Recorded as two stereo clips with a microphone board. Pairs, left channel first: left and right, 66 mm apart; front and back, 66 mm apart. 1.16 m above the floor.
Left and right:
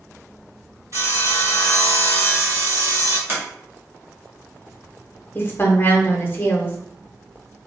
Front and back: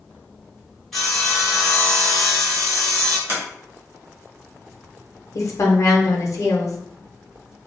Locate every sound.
0.9 s sawing: 85° right, 1.4 m
3.3 s a sliding door: 135° right, 1.0 m
5.3 s a woman speaking: 30° left, 0.6 m